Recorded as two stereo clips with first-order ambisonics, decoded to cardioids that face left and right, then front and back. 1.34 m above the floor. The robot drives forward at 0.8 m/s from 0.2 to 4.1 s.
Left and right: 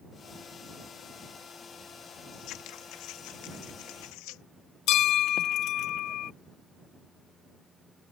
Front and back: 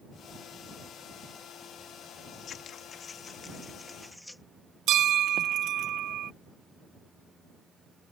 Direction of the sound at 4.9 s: 130° left.